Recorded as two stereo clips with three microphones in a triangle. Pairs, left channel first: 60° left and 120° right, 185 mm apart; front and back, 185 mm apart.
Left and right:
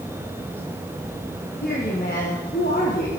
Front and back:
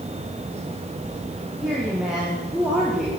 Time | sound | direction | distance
1.6 | a woman speaking | 95° left | 9 m